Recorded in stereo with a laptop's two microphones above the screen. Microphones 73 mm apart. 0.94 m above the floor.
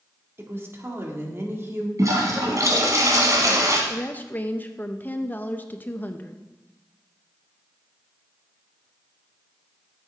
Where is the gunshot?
No gunshot in this recording.